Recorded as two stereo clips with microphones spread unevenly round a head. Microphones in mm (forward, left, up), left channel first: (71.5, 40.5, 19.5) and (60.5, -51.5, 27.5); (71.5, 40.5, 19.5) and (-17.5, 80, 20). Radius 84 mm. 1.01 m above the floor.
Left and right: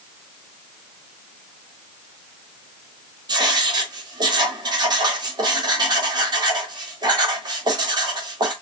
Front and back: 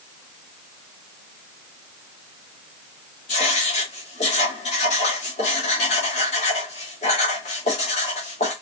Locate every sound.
3.3 s writing: 55° right, 2.5 m